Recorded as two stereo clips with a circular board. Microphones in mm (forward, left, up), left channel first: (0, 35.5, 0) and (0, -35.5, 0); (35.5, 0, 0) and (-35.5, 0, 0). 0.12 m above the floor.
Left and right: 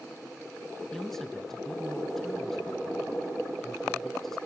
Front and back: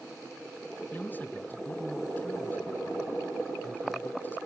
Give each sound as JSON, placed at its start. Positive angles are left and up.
{"t": 0.9, "sound": "a man speaking", "azimuth_deg": 10, "distance_m": 1.4}